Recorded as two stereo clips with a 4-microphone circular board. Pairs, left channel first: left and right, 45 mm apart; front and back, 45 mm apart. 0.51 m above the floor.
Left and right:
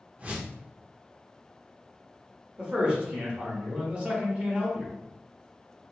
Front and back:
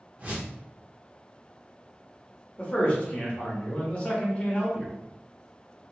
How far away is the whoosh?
About 0.6 m.